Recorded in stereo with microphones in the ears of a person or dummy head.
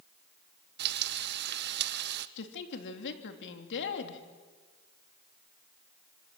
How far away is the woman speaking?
About 3 m.